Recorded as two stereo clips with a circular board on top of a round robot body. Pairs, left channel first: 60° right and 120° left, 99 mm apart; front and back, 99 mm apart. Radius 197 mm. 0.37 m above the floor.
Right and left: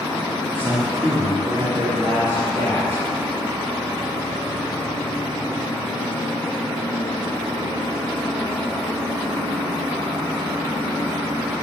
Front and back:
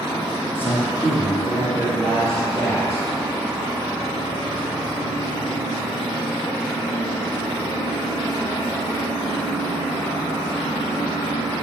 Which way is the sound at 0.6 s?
60° left.